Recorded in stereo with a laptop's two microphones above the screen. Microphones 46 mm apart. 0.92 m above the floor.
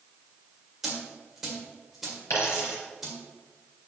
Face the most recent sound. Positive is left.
turn(degrees=80)